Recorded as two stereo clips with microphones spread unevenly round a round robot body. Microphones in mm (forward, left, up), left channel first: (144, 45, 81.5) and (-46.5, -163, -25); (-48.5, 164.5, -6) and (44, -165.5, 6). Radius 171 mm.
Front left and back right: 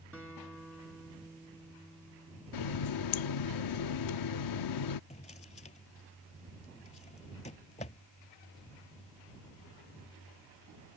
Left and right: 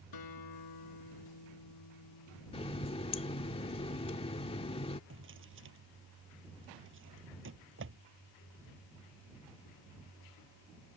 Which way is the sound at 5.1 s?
20° right.